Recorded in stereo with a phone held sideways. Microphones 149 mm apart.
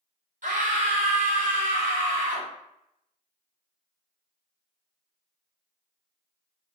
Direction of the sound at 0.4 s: 65° right (ahead or behind).